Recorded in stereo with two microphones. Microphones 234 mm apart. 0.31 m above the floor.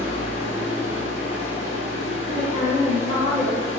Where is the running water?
30° left (ahead or behind), 1.5 m.